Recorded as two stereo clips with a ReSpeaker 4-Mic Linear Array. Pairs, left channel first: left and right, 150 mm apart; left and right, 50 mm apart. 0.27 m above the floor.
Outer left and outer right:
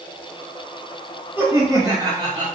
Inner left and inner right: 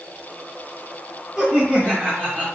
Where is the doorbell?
I don't hear a doorbell.